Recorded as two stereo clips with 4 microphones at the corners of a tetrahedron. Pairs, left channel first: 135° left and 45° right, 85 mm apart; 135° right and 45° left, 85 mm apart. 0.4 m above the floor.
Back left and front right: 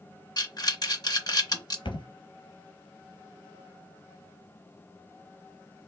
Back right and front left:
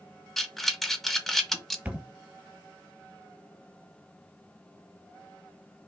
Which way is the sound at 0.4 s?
140° left.